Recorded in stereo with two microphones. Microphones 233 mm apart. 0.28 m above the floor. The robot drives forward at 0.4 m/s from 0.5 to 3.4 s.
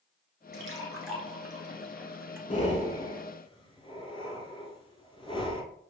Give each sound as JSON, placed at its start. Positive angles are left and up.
{"t": 0.5, "sound": "a splash", "side_deg": -60, "distance_m": 1.2}
{"t": 2.5, "sound": "breathing", "side_deg": 30, "distance_m": 0.7}